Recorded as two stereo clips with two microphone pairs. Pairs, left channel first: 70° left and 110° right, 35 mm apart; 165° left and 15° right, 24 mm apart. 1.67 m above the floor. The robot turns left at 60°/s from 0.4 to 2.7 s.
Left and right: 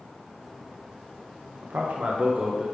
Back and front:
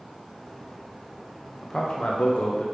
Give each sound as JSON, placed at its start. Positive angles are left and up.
{"t": 1.6, "sound": "a man speaking", "azimuth_deg": -125, "distance_m": 0.9}